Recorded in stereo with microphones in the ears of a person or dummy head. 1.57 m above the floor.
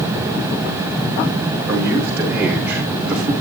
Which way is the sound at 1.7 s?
10° right (ahead or behind).